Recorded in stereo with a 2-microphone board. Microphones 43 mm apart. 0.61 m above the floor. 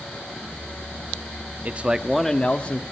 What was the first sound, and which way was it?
A man speaking, 40° right (ahead or behind).